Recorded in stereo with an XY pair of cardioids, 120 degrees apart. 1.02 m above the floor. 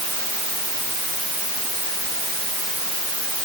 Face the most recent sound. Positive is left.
No sound to turn to.